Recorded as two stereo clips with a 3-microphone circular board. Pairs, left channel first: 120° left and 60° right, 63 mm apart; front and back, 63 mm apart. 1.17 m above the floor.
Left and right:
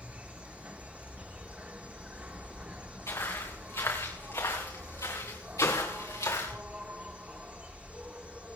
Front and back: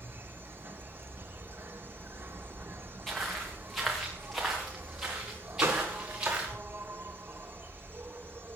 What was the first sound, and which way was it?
An insect, 125° right.